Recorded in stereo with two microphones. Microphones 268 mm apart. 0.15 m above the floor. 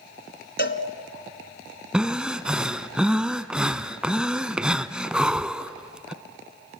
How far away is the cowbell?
About 1.1 m.